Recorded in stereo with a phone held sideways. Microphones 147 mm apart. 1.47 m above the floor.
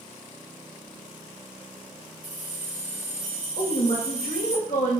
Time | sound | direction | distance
2.2 | keys jangling | 65° left (ahead or behind) | 1.2 m
3.6 | a woman speaking | 75° left (ahead or behind) | 1.1 m